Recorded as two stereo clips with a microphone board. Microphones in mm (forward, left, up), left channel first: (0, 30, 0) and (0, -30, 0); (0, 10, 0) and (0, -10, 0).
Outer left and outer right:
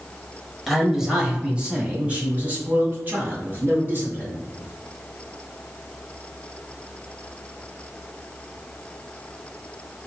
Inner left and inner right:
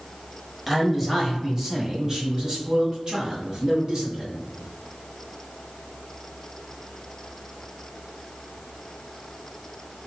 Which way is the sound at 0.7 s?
Centre (ahead or behind).